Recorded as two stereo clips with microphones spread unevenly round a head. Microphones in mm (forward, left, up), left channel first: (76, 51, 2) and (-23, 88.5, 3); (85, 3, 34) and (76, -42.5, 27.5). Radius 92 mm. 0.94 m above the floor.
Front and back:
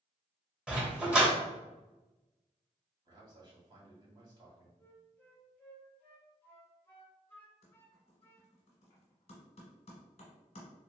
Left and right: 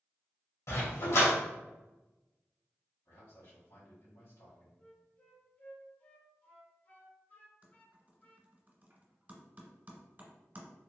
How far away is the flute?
About 1.0 m.